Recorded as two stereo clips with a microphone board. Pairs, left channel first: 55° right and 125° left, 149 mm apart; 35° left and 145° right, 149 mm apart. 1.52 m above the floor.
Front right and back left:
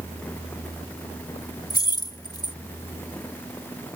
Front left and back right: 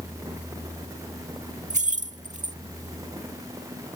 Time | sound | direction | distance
1.7 | keys jangling | 115° right | ?